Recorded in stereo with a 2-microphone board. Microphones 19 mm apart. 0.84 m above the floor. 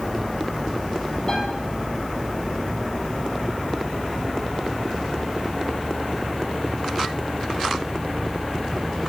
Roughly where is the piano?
Left.